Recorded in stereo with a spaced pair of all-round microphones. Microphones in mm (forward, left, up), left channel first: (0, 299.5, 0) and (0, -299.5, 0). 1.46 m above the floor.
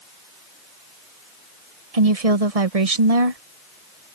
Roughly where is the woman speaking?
Right.